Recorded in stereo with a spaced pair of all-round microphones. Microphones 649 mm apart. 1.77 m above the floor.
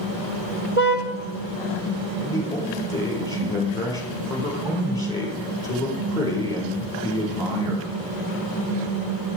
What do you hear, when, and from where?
0.8 s a car horn: 50° right (ahead or behind), 2.5 m
2.2 s a man speaking: 5° left (ahead or behind), 5.5 m